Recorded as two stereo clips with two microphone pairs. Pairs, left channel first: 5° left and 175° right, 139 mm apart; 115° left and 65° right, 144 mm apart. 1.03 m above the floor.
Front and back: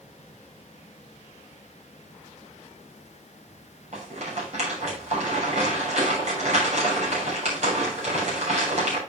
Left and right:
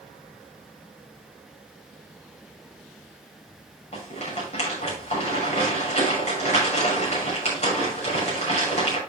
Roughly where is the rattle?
Behind left.